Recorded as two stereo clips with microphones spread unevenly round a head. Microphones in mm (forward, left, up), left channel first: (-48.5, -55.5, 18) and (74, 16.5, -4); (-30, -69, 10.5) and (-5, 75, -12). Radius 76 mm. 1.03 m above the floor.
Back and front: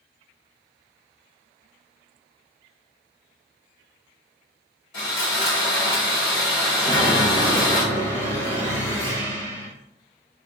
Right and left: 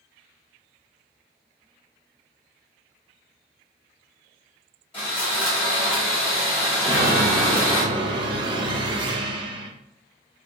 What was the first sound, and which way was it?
Sawing, 155° right.